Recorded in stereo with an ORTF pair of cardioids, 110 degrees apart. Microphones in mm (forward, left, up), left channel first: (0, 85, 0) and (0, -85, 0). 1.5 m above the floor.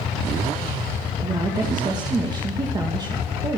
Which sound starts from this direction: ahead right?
A woman speaking, at 1.2 s.